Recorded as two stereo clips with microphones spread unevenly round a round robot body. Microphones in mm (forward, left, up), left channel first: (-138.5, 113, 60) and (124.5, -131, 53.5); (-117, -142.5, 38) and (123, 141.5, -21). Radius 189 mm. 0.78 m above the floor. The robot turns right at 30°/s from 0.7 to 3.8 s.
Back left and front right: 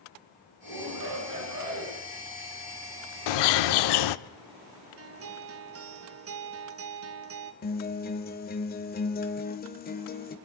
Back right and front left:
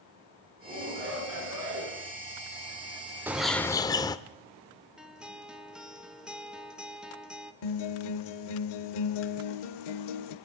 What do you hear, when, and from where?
0.6 s a shout: 25° right, 9 m; by 2.0 s 15° left, 9 m
3.3 s a bird: 140° left, 0.6 m; by 4.2 s 155° left, 0.6 m
5.0 s a guitar: 25° right, 1.2 m
7.6 s a guitar: 155° right, 1.7 m